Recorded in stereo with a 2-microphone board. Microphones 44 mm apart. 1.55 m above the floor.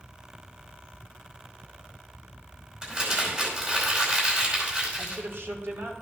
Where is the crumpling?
30° right (ahead or behind), 4.5 m.